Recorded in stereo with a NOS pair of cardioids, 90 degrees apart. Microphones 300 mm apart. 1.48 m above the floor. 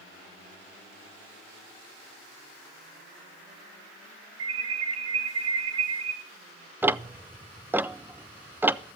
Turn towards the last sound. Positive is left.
turn(degrees=-5)